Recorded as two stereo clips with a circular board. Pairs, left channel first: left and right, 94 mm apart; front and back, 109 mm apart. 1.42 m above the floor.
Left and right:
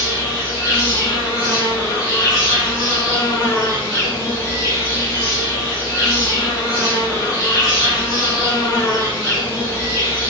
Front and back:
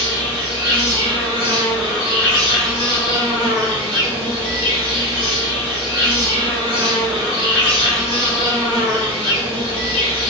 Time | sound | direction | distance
0.0 | an insect | 140° left | 1.9 m